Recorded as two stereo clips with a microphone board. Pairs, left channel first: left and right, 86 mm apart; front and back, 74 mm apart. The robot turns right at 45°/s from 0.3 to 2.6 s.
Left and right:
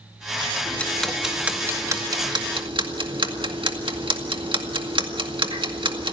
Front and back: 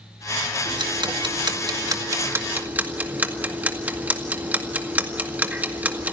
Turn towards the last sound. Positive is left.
turn(degrees=-110)